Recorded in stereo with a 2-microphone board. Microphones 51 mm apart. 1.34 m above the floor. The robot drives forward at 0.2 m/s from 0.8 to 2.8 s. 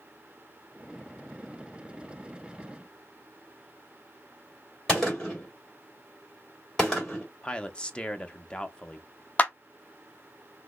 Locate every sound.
4.9 s a gunshot: 10° left (ahead or behind), 2 m
7.4 s a man speaking: 20° left (ahead or behind), 0.5 m
9.4 s a clap: 30° left (ahead or behind), 0.5 m